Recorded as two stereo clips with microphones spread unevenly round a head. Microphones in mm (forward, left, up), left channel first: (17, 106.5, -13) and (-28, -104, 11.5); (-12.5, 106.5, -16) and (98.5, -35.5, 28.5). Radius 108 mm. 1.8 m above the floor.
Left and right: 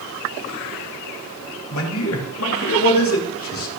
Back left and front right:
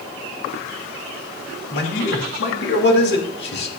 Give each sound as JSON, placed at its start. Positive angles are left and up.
{"t": 1.7, "sound": "a man speaking", "azimuth_deg": 105, "distance_m": 3.0}